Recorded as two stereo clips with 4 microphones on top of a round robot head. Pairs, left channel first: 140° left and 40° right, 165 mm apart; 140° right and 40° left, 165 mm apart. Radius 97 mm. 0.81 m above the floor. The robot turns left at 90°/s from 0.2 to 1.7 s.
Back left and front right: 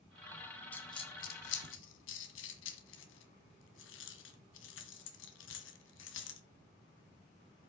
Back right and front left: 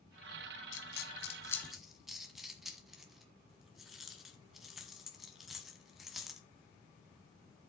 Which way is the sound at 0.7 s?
140° right.